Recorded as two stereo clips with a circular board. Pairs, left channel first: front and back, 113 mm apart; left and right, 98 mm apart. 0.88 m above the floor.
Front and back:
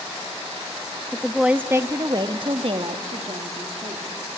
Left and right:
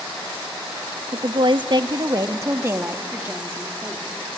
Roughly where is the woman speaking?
Right.